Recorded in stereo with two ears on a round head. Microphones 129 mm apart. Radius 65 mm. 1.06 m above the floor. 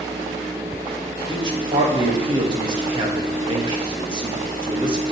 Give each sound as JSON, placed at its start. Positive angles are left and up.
{"t": 1.3, "sound": "a man speaking", "side_deg": -35, "distance_m": 1.3}